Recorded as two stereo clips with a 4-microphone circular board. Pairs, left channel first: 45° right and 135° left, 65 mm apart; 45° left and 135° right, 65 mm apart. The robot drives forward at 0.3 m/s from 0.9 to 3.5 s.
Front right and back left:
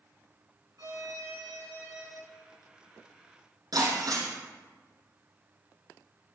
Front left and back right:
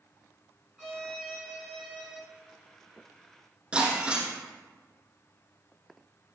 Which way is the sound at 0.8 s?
145° left.